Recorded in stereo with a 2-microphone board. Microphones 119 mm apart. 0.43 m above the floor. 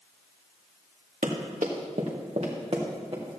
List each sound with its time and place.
1.2 s running footsteps: 80° right, 2 m; by 3.4 s 45° right (ahead or behind), 3 m